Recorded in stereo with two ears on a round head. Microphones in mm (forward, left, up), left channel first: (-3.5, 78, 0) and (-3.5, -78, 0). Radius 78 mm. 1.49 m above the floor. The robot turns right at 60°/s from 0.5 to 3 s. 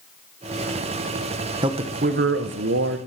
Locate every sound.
1.6 s a man speaking: 155° right, 1.2 m; by 3.0 s 70° right, 1.2 m